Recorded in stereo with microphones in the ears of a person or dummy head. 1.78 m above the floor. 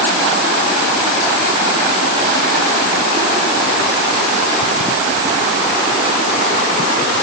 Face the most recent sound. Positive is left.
No sound to turn to.